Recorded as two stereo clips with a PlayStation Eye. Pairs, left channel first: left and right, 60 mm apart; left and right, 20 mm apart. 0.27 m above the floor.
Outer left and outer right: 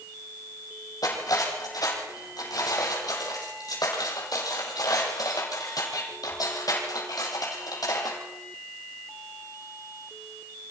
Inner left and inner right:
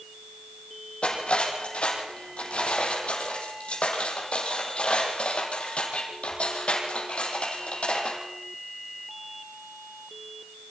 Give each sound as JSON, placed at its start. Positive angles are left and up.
{"t": 1.0, "sound": "cutlery clinking", "side_deg": 85, "distance_m": 5.5}